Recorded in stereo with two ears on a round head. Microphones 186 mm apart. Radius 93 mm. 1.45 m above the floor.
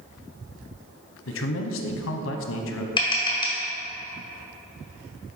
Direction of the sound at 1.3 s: 65° left (ahead or behind).